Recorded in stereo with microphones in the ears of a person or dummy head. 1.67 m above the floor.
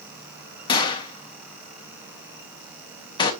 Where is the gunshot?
35° left (ahead or behind), 1.2 m.